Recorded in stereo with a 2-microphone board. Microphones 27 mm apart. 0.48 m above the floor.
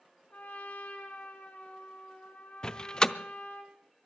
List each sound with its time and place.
0.3 s a trumpet: 85° left, 2.5 m
2.6 s a door slam: 25° left (ahead or behind), 0.6 m